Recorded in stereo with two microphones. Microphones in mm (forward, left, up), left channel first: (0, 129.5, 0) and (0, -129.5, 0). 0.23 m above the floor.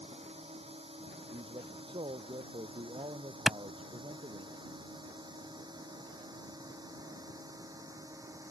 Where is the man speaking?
20° right (ahead or behind).